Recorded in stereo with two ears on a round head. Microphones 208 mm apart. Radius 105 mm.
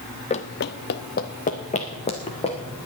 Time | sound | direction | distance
0.3 | running footsteps | 25° left (ahead or behind) | 0.7 m